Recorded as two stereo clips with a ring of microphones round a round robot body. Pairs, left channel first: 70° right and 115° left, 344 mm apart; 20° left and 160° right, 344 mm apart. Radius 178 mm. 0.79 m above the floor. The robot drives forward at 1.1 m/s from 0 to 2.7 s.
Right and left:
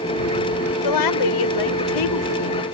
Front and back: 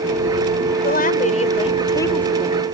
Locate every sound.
0.8 s a woman speaking: 40° right; by 2.6 s 70° right